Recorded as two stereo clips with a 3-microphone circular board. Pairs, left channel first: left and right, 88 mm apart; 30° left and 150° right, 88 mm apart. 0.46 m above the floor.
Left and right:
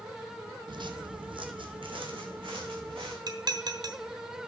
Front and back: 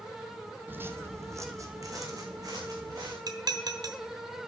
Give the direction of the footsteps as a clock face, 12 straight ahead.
3 o'clock.